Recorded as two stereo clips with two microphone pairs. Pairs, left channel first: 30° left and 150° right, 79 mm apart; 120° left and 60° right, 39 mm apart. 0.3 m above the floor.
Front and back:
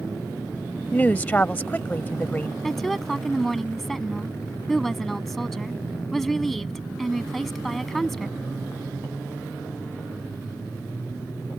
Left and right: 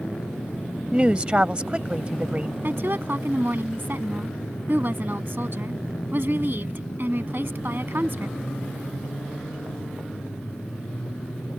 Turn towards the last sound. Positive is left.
turn(degrees=-55)